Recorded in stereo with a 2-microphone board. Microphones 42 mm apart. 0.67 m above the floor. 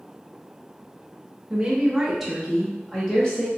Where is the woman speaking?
20° right (ahead or behind), 0.9 m; by 3.5 s 30° left (ahead or behind), 1.1 m.